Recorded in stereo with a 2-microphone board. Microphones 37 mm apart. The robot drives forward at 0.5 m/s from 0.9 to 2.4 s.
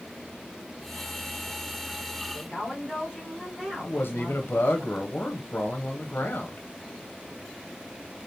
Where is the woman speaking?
10° right (ahead or behind), 1.6 m.